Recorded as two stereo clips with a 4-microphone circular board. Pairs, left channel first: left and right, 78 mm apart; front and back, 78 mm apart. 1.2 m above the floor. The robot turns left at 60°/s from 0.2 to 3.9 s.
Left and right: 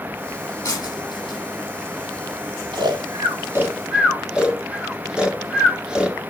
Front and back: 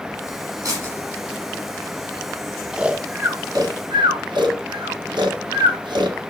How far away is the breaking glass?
About 8 m.